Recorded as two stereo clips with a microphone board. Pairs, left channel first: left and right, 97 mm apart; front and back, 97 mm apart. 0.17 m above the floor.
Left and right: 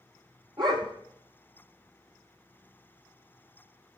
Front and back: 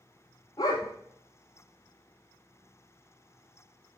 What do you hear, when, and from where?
0.6 s a dog barking: 50° right, 1.5 m